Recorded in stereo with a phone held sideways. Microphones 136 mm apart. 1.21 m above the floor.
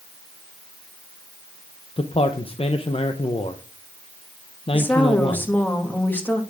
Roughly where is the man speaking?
Left.